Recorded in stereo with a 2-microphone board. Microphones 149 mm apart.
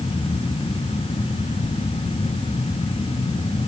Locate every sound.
Only background noise.